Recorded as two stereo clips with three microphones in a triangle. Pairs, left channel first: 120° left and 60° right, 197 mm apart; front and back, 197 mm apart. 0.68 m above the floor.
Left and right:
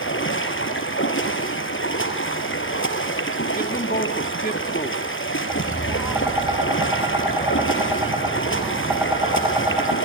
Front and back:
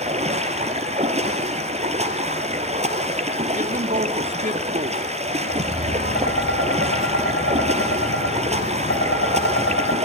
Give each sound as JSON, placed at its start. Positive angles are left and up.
{"t": 0.0, "sound": "running water", "azimuth_deg": 125, "distance_m": 3.0}
{"t": 3.5, "sound": "a man speaking", "azimuth_deg": 145, "distance_m": 1.4}
{"t": 5.5, "sound": "tapping", "azimuth_deg": 20, "distance_m": 4.5}